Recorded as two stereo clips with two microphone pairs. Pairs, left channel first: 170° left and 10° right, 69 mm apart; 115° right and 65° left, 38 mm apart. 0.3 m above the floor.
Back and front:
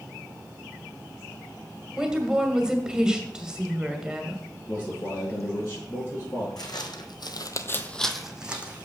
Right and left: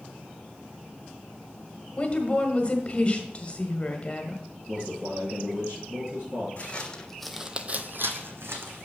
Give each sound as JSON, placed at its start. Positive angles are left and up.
{"t": 2.0, "sound": "a woman speaking", "azimuth_deg": -85, "distance_m": 1.4}
{"t": 4.7, "sound": "a man speaking", "azimuth_deg": 115, "distance_m": 5.0}
{"t": 6.6, "sound": "footsteps", "azimuth_deg": -170, "distance_m": 1.3}